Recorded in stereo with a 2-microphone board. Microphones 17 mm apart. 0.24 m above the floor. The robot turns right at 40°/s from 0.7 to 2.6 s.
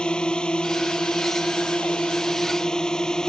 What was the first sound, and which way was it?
A drone, 55° left.